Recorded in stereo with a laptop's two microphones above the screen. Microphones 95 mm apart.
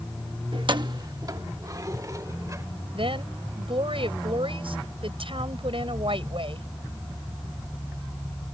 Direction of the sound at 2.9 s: 70° right (ahead or behind).